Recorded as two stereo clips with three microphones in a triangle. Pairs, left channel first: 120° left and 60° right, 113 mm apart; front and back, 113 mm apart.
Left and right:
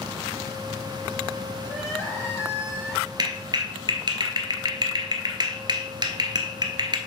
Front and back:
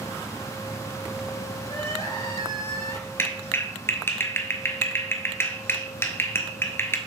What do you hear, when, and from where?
1.6 s crying: 50° left, 4 m
3.2 s a clap: 60° right, 1.1 m